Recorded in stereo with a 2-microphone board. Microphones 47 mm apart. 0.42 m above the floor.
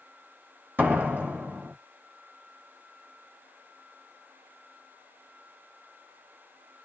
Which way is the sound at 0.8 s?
45° right (ahead or behind).